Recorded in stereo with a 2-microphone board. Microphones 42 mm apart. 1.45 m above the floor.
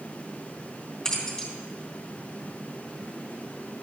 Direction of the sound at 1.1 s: 15° left (ahead or behind).